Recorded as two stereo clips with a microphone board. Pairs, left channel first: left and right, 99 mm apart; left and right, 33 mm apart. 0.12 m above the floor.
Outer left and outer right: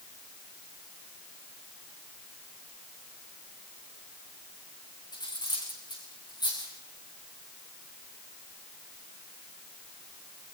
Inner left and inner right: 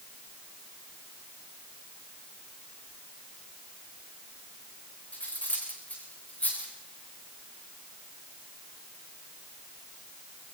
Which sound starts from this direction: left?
Cutlery clinking, at 5.1 s.